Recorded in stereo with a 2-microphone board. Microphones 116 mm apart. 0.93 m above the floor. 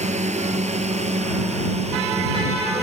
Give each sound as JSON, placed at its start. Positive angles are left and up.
{"t": 0.0, "sound": "a drone", "side_deg": -75}